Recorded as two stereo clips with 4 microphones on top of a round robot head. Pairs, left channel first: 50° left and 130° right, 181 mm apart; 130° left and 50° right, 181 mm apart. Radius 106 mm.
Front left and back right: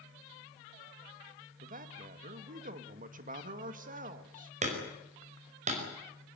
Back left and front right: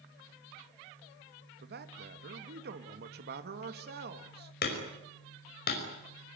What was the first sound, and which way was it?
A man speaking, 85° right.